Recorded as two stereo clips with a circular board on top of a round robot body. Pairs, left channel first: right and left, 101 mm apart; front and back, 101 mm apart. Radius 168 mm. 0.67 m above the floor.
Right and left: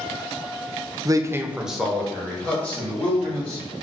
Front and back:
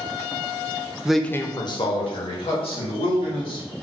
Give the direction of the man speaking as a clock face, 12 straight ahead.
9 o'clock.